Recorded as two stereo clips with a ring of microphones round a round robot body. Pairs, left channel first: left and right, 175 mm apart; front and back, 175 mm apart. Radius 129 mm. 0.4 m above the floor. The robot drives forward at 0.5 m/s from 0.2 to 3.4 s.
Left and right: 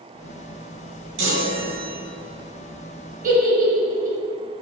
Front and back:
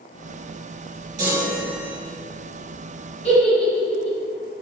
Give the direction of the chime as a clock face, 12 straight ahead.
4 o'clock.